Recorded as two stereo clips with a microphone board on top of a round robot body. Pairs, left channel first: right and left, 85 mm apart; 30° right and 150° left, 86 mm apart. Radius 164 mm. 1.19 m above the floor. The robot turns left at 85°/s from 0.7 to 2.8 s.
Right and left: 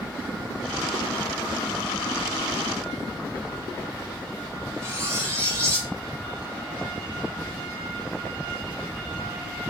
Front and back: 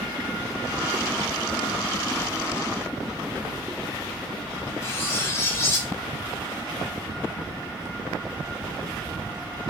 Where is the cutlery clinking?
30° left, 0.6 m.